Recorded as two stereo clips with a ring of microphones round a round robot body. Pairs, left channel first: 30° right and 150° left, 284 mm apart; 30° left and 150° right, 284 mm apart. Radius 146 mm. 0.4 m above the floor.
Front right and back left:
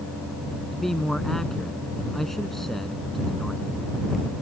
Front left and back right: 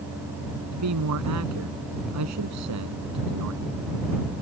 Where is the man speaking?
120° right.